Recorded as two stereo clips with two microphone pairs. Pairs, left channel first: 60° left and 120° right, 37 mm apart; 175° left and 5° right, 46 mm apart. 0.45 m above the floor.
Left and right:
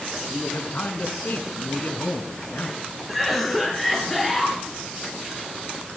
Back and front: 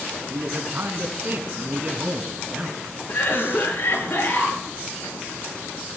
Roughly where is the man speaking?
Ahead.